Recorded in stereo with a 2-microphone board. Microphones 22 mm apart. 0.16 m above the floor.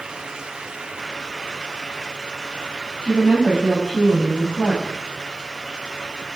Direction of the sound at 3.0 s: 50° right (ahead or behind).